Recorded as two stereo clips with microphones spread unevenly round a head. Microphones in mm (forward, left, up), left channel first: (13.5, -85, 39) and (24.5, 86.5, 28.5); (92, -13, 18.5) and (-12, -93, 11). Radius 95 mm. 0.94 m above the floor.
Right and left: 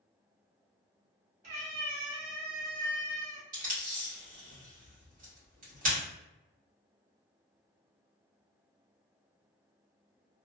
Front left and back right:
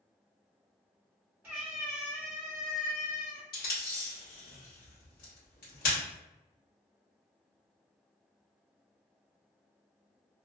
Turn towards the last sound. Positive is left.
turn(degrees=45)